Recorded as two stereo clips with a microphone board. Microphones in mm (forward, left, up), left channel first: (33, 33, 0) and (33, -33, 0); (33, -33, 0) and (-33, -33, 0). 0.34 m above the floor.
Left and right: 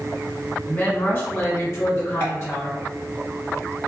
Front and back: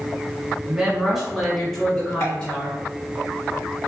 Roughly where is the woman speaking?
Behind left.